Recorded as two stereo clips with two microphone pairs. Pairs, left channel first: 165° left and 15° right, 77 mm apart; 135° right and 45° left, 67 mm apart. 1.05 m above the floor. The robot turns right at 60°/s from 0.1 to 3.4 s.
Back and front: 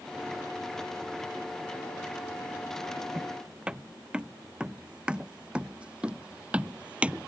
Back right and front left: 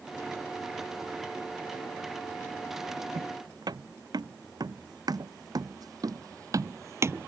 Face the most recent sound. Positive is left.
turn(degrees=45)